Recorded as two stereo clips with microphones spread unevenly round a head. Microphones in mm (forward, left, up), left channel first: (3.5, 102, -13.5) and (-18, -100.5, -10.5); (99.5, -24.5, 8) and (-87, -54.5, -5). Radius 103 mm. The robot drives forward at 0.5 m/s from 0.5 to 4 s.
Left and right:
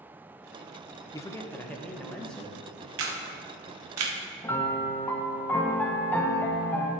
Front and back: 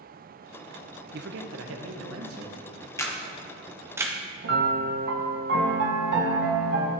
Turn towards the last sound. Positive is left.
turn(degrees=165)